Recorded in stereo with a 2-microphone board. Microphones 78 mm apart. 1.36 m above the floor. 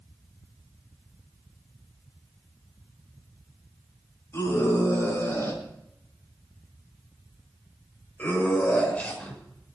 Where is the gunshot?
No gunshot in this recording.